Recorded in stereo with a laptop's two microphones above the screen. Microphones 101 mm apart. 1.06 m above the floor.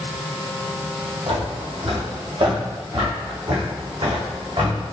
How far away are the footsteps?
About 2.5 m.